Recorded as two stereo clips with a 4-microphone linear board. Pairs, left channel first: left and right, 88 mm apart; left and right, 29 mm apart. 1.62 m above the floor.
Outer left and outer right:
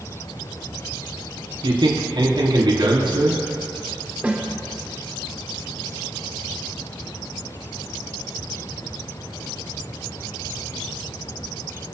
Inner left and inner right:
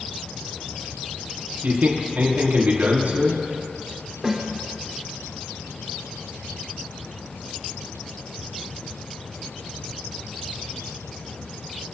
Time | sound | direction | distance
1.6 | a man speaking | 65° right (ahead or behind) | 4 m
4.2 | a snare drum | 15° right (ahead or behind) | 2.5 m